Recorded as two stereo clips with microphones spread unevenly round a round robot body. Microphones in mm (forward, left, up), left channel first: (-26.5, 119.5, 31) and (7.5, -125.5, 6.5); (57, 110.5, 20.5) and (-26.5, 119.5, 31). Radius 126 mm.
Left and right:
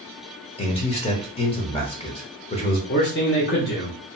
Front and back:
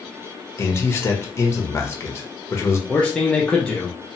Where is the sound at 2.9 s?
60° left, 0.7 m.